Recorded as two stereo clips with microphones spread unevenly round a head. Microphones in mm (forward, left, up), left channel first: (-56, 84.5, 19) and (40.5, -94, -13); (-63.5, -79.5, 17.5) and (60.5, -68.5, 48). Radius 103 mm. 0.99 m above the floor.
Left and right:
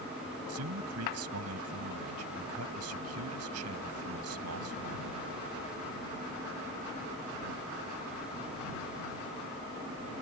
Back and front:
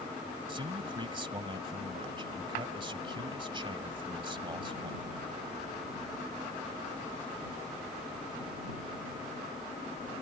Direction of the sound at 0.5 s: 45° right.